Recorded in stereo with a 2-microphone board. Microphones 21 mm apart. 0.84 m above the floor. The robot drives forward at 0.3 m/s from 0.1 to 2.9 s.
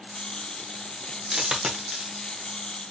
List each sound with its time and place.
1.3 s a dropped coin: 30° right (ahead or behind), 0.6 m; by 2.2 s 25° right (ahead or behind), 0.8 m